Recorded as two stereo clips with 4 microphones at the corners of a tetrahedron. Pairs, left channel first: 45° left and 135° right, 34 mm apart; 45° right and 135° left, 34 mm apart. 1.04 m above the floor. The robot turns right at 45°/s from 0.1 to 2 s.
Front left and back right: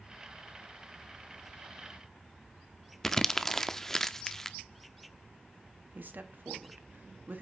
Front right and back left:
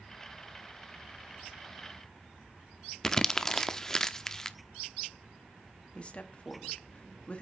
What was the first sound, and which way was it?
Crumpling, 10° right.